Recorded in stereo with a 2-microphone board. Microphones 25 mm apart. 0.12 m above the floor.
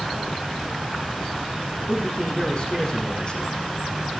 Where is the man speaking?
40° left (ahead or behind), 6 m.